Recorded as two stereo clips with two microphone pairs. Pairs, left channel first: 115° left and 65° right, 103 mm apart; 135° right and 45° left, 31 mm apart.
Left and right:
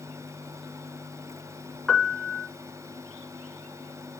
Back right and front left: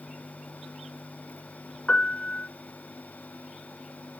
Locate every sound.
1.9 s a piano: 155° right, 1.0 m